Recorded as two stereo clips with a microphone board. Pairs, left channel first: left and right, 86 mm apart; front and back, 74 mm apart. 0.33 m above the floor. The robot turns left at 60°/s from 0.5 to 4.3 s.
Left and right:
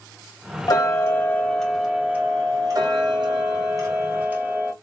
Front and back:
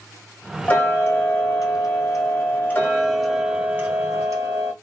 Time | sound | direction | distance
0.7 | ticking | 60° left | 1.0 m